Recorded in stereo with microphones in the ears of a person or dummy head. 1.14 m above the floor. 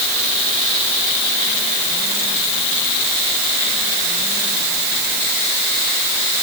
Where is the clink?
I don't hear a clink.